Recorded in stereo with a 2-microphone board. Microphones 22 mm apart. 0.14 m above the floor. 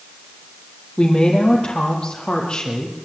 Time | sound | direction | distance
1.0 | a woman speaking | 40° left (ahead or behind) | 5.5 m